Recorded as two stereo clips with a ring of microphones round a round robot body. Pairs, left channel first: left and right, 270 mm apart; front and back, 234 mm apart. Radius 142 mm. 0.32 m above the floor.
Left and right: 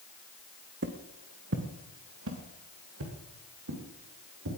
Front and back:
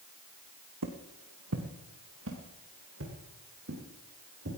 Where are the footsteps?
145° right, 1.5 m; by 4.5 s 130° right, 5 m.